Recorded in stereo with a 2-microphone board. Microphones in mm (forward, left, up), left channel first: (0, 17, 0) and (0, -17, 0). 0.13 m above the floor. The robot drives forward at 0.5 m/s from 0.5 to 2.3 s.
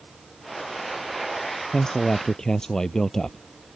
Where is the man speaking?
20° left (ahead or behind); by 3.4 s 15° left (ahead or behind).